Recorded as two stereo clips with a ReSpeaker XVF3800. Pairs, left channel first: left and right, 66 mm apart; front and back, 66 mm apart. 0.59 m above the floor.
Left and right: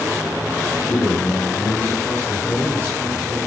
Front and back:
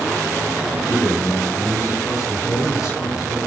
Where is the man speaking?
30° left, 3 m.